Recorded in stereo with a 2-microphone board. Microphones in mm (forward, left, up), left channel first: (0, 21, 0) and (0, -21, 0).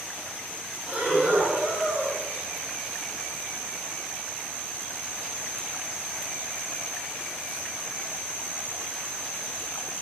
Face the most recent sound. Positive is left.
turn(degrees=-45)  # may be behind; listen again after turning